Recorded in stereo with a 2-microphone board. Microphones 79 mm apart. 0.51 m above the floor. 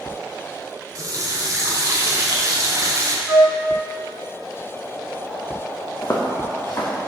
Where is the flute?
20° right (ahead or behind), 1.3 m.